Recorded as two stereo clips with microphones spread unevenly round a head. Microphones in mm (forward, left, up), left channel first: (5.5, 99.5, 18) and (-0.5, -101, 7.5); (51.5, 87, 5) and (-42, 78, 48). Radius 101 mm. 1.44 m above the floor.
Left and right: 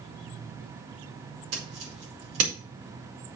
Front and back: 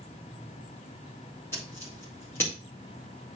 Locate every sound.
1.5 s scissors: 70° right, 4.5 m